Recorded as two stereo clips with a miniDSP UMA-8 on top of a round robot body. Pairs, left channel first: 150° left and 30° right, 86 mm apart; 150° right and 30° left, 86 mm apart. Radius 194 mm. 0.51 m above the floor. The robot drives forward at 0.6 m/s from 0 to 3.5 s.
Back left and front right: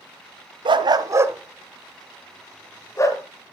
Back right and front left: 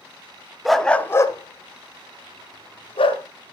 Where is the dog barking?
55° right, 0.6 m; by 3.2 s 155° right, 1.3 m.